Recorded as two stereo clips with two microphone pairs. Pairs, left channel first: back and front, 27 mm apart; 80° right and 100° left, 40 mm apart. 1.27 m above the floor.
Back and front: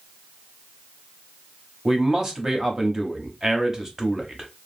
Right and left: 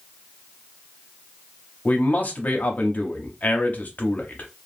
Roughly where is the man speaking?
Ahead right.